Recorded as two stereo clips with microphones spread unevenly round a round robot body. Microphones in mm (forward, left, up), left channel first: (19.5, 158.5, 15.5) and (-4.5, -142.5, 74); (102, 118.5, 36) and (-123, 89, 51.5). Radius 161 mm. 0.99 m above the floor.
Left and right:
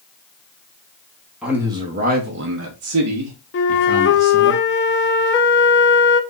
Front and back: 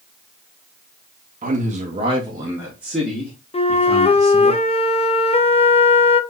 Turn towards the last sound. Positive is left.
turn(degrees=65)